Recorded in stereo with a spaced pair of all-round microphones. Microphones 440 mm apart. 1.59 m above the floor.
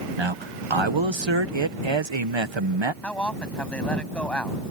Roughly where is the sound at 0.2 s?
Right.